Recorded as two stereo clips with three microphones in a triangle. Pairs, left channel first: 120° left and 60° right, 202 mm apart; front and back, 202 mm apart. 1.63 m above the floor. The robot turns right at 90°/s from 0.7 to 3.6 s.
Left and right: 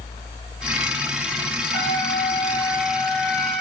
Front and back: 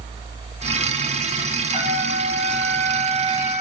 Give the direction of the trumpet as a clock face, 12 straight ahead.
8 o'clock.